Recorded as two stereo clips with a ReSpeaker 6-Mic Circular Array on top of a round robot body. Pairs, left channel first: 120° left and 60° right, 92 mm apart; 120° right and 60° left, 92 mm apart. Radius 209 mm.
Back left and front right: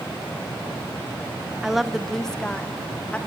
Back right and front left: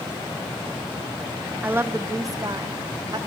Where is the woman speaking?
15° left, 1.4 m; by 3.2 s 50° left, 2 m.